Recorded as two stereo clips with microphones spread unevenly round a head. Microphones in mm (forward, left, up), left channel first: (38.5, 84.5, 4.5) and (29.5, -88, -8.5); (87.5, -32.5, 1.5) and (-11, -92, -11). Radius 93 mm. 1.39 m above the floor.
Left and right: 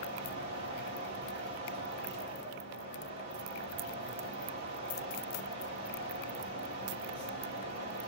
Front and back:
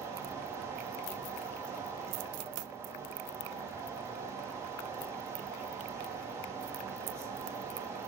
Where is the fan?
90° right, 3 m.